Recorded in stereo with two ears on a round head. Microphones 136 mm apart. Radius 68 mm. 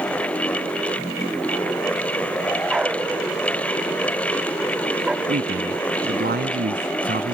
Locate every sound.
2.7 s a dog barking: 5° right (ahead or behind)
5.3 s a man speaking: 70° right (ahead or behind)